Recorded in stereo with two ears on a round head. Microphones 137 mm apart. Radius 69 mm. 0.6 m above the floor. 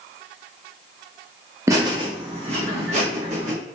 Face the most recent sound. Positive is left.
turn(degrees=-50)  # may be behind; listen again after turning